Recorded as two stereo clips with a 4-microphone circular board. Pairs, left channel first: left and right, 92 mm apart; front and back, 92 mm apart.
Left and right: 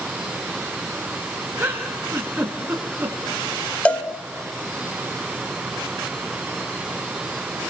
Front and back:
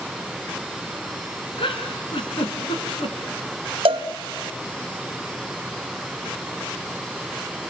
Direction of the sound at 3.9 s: 165° left.